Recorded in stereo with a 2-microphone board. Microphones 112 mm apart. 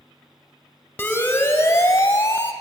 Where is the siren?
15° left (ahead or behind), 2.5 m; by 2.5 s 30° left (ahead or behind), 2 m.